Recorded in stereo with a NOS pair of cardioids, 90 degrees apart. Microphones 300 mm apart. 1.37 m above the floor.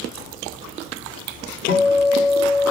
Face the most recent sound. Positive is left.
turn(degrees=65)